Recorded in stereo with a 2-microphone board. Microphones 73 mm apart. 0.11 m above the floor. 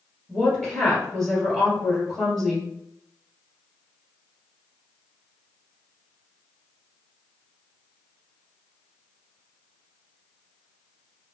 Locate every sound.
0.3 s a woman speaking: 10° left (ahead or behind), 2.0 m